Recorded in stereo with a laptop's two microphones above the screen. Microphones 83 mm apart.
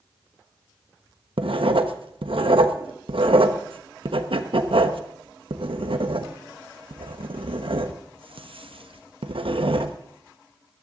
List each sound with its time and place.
1.4 s writing: 85° right, 1.0 m